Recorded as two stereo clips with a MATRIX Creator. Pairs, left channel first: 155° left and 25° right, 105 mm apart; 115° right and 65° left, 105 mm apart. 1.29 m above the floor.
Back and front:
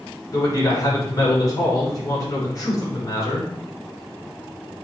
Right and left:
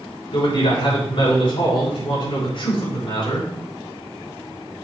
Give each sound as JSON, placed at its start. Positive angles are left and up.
{"t": 0.3, "sound": "a man speaking", "azimuth_deg": -145, "distance_m": 5.5}